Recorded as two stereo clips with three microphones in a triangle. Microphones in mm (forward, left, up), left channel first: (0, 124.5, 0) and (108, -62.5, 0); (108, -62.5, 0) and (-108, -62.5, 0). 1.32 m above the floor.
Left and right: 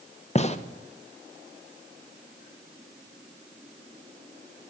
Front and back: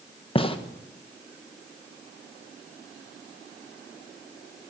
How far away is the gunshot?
About 0.6 m.